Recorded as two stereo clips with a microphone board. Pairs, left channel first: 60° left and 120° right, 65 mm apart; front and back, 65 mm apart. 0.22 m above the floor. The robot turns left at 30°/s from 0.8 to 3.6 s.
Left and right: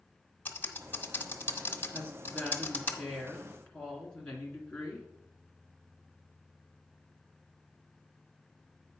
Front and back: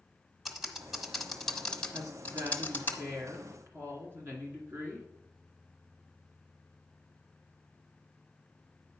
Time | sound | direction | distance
0.5 | typing on a keyboard | 90° left | 1.1 m
1.9 | a woman speaking | 175° right | 2 m